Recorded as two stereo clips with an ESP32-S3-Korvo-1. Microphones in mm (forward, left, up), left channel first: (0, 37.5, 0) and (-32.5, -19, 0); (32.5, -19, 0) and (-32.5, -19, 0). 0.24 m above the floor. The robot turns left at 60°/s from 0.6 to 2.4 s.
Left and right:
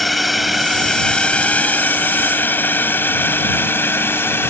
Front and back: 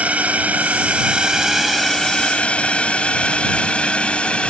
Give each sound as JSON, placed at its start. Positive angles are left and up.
{"t": 0.0, "sound": "a drone", "azimuth_deg": 150}